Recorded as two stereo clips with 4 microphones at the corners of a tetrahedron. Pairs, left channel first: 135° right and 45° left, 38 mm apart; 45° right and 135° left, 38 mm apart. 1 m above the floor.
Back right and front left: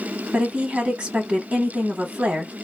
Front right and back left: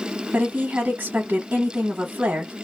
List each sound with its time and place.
0.3 s a woman speaking: 90° left, 1.1 m